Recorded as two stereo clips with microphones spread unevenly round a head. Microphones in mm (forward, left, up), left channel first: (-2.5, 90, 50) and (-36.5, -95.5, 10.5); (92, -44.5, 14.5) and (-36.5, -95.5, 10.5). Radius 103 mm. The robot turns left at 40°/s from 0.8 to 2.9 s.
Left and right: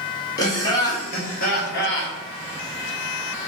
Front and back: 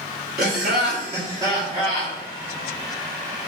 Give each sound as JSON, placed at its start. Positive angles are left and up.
{"t": 0.4, "sound": "laughter", "azimuth_deg": 150, "distance_m": 1.5}